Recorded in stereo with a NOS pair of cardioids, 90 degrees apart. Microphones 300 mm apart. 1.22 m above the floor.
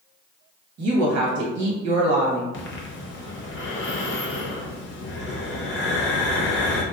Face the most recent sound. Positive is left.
turn(degrees=40)